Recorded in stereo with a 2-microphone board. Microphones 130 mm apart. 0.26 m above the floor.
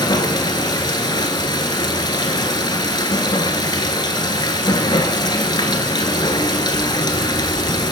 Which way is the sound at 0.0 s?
35° left (ahead or behind).